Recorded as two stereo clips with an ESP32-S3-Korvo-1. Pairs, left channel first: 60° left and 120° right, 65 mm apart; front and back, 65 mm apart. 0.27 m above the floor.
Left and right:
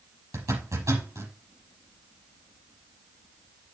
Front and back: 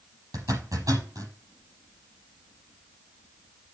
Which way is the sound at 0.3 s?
155° right.